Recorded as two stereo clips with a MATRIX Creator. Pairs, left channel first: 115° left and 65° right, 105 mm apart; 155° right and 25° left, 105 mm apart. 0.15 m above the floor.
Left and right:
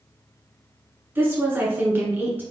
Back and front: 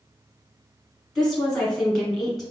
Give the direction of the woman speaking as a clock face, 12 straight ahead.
2 o'clock.